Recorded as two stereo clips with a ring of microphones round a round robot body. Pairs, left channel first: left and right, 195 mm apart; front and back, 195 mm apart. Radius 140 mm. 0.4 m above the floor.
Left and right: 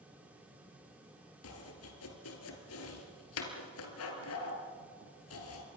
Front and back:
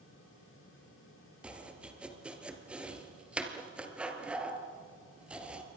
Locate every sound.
1.4 s chopping: 95° left, 3 m